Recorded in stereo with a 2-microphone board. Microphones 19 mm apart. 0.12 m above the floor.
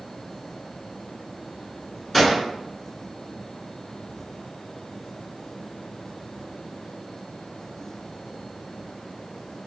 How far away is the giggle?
No giggle in this recording.